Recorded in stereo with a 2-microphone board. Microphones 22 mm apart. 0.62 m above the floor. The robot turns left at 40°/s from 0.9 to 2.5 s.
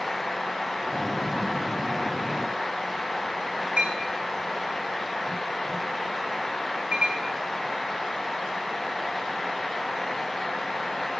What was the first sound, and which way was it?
A clink, 70° right (ahead or behind).